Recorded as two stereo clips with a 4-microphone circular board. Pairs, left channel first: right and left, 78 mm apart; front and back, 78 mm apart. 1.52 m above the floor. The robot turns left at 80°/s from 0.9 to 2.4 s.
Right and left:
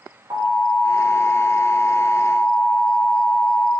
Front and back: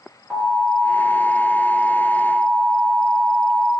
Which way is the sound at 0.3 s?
105° left.